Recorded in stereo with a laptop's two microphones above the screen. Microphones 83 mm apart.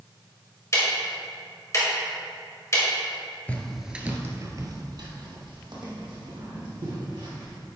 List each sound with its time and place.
0.7 s ticking: 35° left (ahead or behind), 2 m
3.5 s footsteps: 15° left (ahead or behind), 1.1 m; by 7.6 s 75° right (ahead or behind), 4.5 m